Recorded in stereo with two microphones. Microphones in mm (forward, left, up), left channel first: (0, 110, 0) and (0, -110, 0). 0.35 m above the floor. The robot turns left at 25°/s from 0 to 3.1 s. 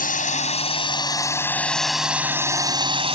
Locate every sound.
0.0 s a drone: 50° left; by 3.2 s 30° right